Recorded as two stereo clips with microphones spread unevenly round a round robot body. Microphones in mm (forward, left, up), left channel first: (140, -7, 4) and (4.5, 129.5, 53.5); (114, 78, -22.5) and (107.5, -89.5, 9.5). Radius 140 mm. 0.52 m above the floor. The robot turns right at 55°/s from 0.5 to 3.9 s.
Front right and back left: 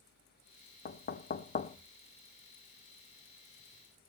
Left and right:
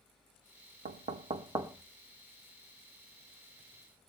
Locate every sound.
0.8 s knocking: 60° right, 0.7 m; by 1.8 s 10° right, 0.7 m